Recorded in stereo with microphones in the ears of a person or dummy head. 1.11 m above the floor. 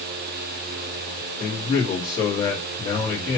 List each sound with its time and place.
1.4 s a man speaking: 20° left (ahead or behind), 1.6 m